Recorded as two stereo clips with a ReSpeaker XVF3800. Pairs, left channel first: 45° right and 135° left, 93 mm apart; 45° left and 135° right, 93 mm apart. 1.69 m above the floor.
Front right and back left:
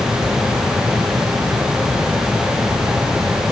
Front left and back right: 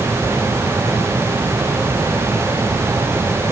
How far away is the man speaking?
I don't hear a man speaking.